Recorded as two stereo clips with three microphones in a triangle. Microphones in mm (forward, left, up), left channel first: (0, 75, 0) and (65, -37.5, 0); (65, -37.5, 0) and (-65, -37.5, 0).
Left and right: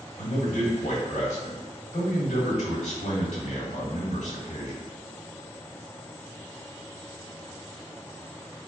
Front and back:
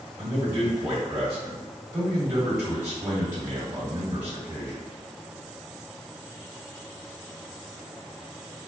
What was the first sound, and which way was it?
A man speaking, 115° left.